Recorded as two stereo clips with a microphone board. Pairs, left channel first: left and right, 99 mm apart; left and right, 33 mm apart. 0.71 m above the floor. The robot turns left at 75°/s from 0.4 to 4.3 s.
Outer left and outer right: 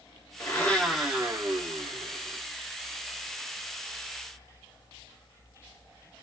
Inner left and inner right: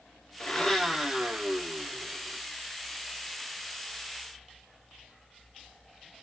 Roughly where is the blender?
Ahead left.